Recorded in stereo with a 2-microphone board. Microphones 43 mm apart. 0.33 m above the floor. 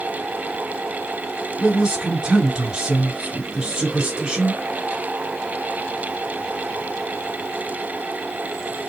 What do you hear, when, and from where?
1.6 s a man speaking: 15° right (ahead or behind), 1.4 m